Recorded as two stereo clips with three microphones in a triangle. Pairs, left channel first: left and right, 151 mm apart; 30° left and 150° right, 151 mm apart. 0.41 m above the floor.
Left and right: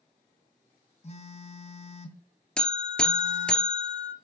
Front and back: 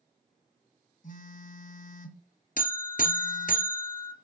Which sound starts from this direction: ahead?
A buzzer, at 2.6 s.